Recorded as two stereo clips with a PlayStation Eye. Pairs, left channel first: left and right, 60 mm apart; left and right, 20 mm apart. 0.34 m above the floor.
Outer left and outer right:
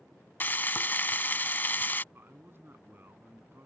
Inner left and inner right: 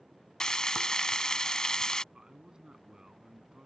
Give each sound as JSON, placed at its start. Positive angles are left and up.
{"t": 0.4, "sound": "frying", "side_deg": 35}
{"t": 2.1, "sound": "a man speaking", "side_deg": -40}